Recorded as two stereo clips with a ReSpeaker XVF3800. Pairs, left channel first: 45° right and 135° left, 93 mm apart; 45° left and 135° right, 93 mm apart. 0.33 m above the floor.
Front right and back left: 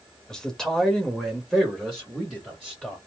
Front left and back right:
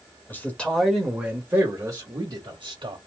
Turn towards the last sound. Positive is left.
turn(degrees=-135)